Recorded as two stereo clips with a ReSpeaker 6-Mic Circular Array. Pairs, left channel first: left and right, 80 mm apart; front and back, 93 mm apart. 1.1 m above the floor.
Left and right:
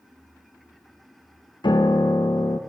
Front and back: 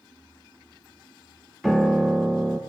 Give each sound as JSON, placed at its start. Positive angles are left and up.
{"t": 1.6, "sound": "a piano", "azimuth_deg": 90, "distance_m": 0.8}